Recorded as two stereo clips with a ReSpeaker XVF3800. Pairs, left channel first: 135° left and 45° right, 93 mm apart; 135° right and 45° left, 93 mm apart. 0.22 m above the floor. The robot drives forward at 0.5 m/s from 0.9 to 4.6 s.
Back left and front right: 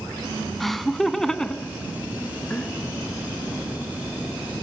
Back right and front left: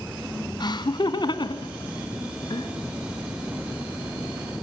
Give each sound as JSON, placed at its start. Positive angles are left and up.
{"t": 0.6, "sound": "laughter", "azimuth_deg": -135, "distance_m": 1.7}